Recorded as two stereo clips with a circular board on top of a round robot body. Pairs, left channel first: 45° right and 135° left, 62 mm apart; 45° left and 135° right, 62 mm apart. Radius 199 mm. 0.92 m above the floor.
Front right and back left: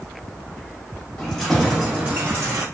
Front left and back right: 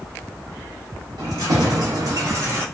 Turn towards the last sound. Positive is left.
turn(degrees=160)